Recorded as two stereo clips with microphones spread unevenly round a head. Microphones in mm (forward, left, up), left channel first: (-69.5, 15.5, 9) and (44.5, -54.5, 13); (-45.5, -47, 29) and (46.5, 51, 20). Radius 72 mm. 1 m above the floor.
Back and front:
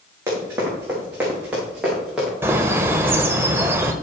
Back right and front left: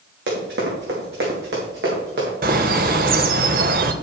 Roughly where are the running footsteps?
Ahead left.